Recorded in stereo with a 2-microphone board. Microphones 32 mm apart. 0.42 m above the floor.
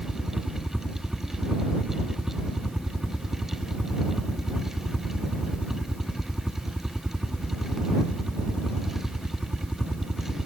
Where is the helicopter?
10° right (ahead or behind).